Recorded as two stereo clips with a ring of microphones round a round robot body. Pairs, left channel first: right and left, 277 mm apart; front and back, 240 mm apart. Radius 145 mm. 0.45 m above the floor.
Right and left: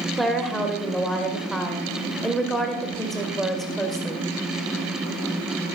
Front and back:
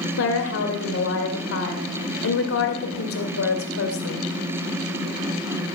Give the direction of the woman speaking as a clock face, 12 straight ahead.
12 o'clock.